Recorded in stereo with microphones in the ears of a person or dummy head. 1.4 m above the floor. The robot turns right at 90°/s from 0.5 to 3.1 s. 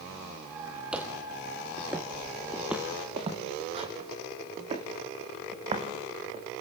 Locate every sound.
0.9 s footsteps: centre (ahead or behind), 1.9 m; by 6.4 s 30° right (ahead or behind), 6 m